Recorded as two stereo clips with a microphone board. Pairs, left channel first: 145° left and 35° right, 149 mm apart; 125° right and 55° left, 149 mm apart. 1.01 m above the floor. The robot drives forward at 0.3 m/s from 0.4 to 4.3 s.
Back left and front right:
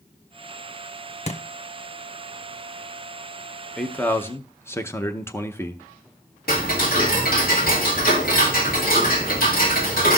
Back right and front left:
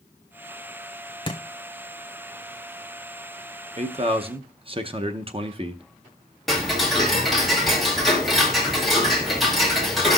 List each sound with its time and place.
1.3 s a thud: straight behind, 0.9 m
3.8 s a man speaking: 60° left, 0.7 m; by 5.8 s 80° left, 0.6 m
6.5 s ticking: 145° left, 1.7 m